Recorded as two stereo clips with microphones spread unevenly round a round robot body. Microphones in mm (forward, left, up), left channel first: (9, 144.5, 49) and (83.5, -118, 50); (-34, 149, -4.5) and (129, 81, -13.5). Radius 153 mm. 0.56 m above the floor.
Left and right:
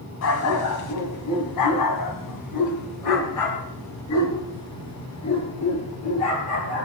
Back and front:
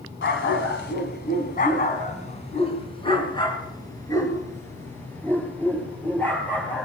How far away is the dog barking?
About 1.9 m.